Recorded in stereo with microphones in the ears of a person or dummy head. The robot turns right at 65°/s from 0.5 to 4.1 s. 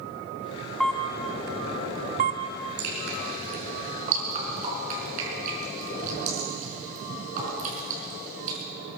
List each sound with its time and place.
0.8 s a camera shutter: 5° left (ahead or behind), 1.0 m; by 2.4 s 35° right (ahead or behind), 1.0 m
2.8 s dripping: 50° right (ahead or behind), 5 m; by 8.6 s 45° right (ahead or behind), 5 m